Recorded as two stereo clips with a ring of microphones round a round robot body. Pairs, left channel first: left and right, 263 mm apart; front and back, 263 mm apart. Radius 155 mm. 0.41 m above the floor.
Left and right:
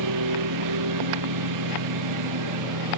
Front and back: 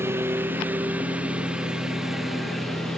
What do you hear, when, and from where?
0.0 s a lawn mower: 100° right; by 3.0 s 90° right